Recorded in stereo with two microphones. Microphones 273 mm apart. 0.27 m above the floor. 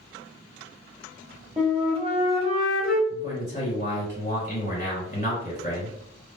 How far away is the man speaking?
About 1.6 m.